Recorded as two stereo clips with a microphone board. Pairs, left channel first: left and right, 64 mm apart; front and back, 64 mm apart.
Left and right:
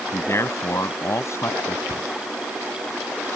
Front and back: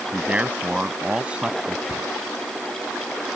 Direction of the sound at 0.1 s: 110° left.